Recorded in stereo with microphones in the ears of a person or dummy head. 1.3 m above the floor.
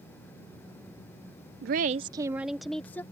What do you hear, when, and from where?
1.6 s a woman speaking: 60° right (ahead or behind); by 3.0 s 10° left (ahead or behind)